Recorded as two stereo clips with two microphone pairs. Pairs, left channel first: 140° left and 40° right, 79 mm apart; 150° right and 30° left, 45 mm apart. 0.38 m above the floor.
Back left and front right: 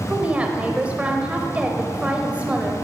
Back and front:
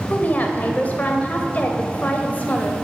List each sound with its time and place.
0.1 s a woman speaking: 115° right, 1.4 m